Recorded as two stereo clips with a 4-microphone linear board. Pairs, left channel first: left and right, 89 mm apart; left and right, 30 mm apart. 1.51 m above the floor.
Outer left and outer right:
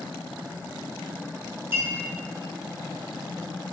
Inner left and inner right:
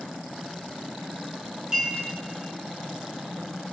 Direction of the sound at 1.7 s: 25° right (ahead or behind).